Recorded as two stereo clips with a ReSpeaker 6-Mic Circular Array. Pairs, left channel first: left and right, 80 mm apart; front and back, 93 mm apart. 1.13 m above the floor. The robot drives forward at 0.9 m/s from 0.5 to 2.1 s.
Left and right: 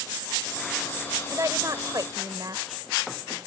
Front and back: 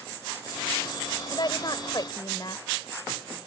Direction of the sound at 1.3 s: 40° right.